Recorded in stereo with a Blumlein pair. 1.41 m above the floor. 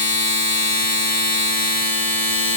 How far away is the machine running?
About 1.3 m.